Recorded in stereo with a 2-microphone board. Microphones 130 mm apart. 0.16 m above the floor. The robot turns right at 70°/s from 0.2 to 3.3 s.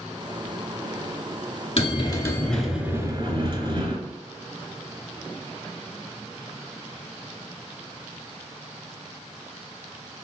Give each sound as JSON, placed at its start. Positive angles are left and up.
{"t": 1.8, "sound": "a bell", "azimuth_deg": 120, "distance_m": 0.6}